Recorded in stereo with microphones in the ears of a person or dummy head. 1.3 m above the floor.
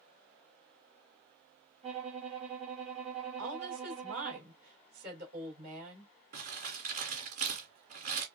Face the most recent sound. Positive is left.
turn(degrees=-45)  # may be behind; listen again after turning